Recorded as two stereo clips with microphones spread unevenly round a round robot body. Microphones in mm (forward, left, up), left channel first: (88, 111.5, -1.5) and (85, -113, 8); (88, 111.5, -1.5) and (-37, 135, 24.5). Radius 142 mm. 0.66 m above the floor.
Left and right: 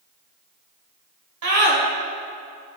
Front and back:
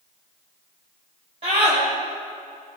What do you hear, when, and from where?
1.4 s a scream: 120° right, 2.5 m